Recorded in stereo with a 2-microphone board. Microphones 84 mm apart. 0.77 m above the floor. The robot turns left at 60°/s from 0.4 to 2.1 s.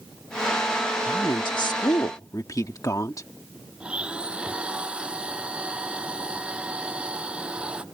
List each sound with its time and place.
1.1 s a woman speaking: 110° left; by 3.3 s 50° left
3.8 s a blender: 15° right (ahead or behind)